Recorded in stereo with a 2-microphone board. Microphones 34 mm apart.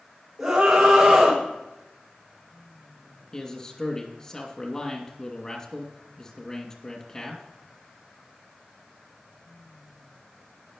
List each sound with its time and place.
0.4 s a scream: 5° right (ahead or behind), 6 m
3.3 s a man speaking: 25° left (ahead or behind), 2.5 m